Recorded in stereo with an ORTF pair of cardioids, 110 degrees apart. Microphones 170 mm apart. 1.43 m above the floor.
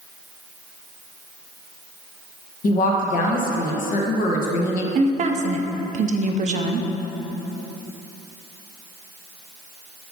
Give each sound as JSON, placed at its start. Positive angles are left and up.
{"t": 2.6, "sound": "a woman speaking", "azimuth_deg": 55, "distance_m": 1.2}
{"t": 5.0, "sound": "a woman speaking", "azimuth_deg": -45, "distance_m": 0.6}